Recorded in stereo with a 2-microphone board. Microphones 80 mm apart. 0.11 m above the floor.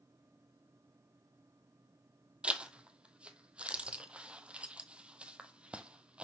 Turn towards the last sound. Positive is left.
turn(degrees=-15)  # may be behind; listen again after turning